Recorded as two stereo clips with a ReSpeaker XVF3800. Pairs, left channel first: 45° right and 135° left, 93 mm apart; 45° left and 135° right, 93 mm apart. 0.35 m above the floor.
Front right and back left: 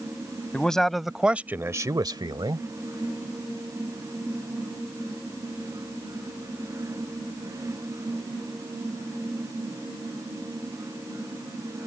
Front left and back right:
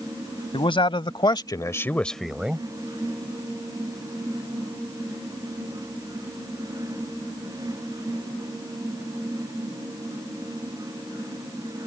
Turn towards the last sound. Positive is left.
turn(degrees=155)